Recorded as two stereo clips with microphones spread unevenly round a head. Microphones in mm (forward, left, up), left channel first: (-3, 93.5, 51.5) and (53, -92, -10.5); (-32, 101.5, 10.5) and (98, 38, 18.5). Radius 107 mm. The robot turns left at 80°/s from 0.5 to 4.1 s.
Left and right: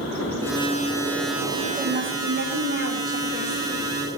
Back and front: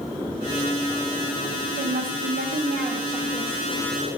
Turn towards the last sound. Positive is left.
turn(degrees=165)